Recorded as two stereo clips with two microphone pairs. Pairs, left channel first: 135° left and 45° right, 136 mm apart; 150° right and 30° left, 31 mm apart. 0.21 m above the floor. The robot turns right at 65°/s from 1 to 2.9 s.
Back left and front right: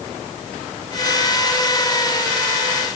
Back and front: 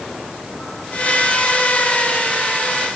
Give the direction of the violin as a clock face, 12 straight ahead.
No violin in this recording.